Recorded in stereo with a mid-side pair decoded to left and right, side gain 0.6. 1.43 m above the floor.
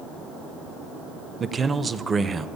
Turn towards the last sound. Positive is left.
turn(degrees=-25)